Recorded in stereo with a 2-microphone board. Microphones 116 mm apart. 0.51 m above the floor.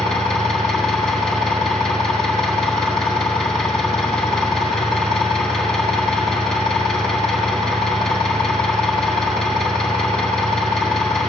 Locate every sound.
0.0 s an engine running: 5° left (ahead or behind), 1.5 m